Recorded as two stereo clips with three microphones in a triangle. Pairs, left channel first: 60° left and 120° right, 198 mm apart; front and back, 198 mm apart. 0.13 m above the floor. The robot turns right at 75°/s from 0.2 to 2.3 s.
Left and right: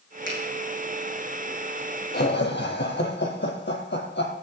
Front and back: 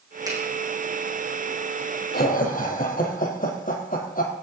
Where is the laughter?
30° left, 3.5 m; by 4.3 s 40° left, 3.5 m.